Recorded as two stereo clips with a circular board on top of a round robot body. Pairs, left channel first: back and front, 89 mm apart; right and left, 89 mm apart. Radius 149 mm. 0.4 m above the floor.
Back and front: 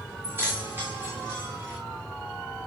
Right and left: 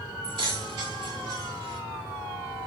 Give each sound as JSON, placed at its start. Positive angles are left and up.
{"t": 0.2, "sound": "keys jangling", "azimuth_deg": 65, "distance_m": 6.0}